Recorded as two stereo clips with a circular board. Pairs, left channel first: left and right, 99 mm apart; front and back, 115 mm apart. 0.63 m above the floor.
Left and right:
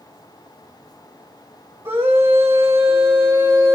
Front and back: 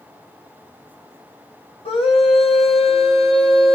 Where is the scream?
25° right, 3.5 m.